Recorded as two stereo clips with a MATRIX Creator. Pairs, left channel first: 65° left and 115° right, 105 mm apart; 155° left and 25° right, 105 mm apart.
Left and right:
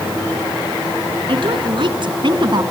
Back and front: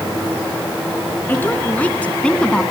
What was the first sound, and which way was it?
A woman speaking, 130° right.